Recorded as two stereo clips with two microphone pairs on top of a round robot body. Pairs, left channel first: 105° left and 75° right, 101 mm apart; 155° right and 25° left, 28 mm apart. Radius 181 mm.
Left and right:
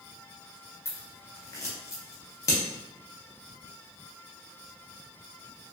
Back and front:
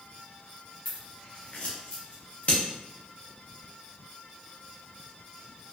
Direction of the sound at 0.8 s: 165° left.